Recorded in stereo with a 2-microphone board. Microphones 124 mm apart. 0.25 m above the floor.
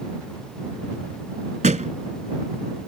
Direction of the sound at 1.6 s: 80° right.